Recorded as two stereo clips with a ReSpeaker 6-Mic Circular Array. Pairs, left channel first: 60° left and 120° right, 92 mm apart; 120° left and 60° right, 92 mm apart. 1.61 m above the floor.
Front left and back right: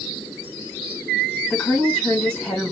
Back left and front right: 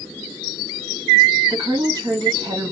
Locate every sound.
1.5 s a woman speaking: 15° right, 2 m